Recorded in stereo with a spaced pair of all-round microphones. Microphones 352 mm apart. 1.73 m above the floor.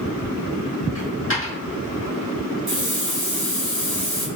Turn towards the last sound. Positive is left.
turn(degrees=-50)  # may be behind; listen again after turning